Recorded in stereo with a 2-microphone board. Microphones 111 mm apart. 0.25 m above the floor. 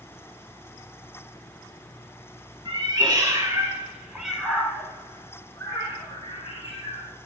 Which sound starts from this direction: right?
A cat meowing, at 2.6 s.